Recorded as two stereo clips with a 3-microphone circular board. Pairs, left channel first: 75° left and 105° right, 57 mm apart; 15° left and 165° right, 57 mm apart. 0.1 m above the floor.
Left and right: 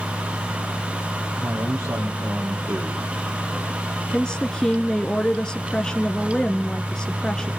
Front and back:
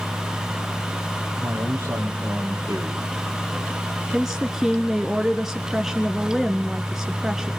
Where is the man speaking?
120° right, 7.5 m.